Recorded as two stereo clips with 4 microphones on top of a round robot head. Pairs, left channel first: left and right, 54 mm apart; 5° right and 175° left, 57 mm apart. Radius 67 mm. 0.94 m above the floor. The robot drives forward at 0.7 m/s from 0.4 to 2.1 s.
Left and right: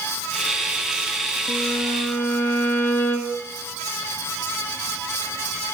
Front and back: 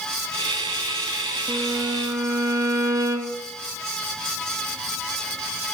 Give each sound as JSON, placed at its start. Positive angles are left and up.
{"t": 1.5, "sound": "a violin", "azimuth_deg": 110, "distance_m": 0.6}